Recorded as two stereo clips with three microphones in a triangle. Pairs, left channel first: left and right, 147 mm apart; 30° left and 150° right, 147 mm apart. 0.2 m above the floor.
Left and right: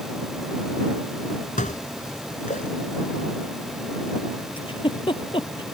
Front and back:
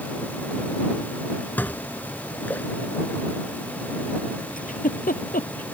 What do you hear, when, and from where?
1.6 s dishes clattering: 105° left
4.6 s a giggle: 40° left